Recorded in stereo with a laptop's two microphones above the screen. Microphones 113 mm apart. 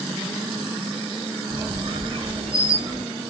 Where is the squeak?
55° right (ahead or behind), 0.5 m.